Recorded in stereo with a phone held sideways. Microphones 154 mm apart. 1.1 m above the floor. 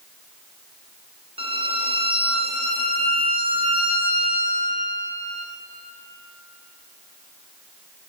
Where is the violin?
35° right (ahead or behind), 0.6 m.